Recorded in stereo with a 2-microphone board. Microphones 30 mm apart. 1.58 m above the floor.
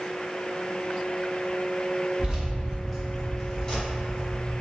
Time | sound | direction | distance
2.2 | keys jangling | 35° right (ahead or behind) | 0.8 m